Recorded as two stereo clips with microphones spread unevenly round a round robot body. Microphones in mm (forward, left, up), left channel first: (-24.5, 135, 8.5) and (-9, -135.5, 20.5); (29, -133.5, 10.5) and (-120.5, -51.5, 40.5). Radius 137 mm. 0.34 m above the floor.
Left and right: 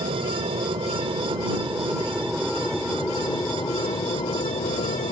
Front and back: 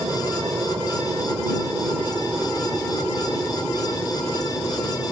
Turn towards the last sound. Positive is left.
turn(degrees=45)